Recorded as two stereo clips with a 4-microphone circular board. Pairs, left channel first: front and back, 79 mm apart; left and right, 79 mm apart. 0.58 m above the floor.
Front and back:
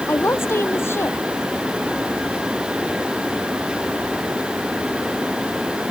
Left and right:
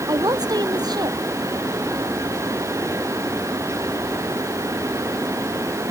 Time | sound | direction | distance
0.1 | a woman speaking | 60° right | ?